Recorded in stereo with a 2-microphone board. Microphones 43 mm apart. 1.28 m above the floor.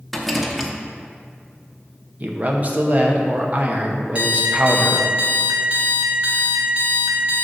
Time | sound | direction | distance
0.1 | a rattle | centre (ahead or behind) | 0.8 m
2.2 | a man speaking | 40° right (ahead or behind) | 0.8 m
4.2 | an alarm clock | 30° right (ahead or behind) | 1.1 m